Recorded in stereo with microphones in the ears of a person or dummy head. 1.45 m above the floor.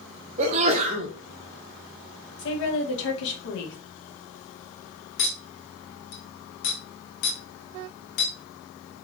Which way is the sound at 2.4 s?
65° left (ahead or behind).